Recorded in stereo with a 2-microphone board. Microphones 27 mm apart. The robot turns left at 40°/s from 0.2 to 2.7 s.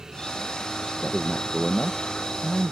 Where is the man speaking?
65° left, 0.6 m; by 2.7 s straight ahead, 0.6 m.